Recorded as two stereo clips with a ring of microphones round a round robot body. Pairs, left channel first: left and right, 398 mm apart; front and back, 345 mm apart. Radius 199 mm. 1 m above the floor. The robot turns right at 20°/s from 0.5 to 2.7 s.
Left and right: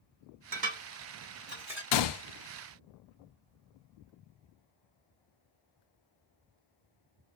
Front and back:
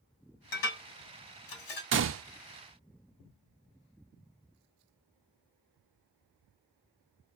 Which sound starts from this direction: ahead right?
Dishes clattering, at 0.5 s.